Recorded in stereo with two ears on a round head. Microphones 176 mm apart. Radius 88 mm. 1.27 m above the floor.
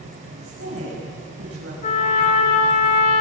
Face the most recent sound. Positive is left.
turn(degrees=40)  # may be behind; listen again after turning